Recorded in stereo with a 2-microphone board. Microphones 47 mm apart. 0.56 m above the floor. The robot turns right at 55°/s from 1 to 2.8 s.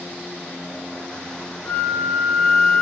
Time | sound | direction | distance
1.6 | a flute | 95° left | 1.1 m